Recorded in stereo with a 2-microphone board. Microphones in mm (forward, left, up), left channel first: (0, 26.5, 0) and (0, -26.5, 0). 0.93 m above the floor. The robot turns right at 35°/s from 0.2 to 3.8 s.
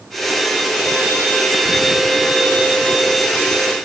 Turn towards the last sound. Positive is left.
No sound to turn to.